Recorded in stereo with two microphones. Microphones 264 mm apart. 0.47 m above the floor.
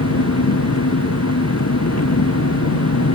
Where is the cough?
I don't hear a cough.